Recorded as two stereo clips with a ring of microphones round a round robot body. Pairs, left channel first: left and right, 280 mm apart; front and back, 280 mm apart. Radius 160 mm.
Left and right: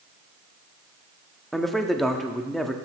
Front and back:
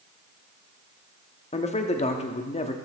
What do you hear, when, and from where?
1.5 s a man speaking: straight ahead, 1.0 m